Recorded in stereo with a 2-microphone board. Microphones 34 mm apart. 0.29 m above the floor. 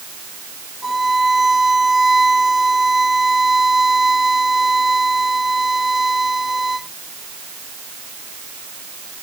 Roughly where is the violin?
Centre.